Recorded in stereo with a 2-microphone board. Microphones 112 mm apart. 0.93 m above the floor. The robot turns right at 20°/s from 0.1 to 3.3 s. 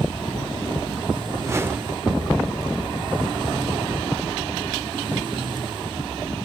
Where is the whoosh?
25° right (ahead or behind), 0.8 m; by 2.0 s 15° right (ahead or behind), 0.8 m.